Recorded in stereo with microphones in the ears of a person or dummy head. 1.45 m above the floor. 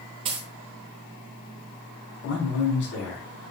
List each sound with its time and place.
0.2 s a dropped coin: 25° right (ahead or behind), 0.9 m
2.2 s a man speaking: 70° left (ahead or behind), 4 m